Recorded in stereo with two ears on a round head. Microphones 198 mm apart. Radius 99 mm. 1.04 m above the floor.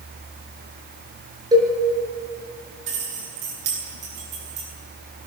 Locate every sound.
1.5 s a cowbell: 20° right (ahead or behind), 6 m
2.9 s keys jangling: 75° right (ahead or behind), 10 m